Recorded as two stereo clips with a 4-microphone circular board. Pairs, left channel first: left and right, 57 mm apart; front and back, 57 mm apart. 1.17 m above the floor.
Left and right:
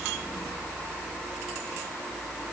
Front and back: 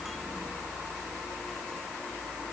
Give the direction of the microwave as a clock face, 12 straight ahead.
No microwave in this recording.